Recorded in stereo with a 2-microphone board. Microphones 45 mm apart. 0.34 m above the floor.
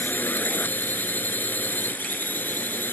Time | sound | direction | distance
0.0 | a drone | 45° left (ahead or behind) | ?